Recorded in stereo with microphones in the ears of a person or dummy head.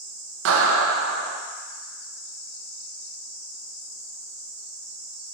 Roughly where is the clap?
Right.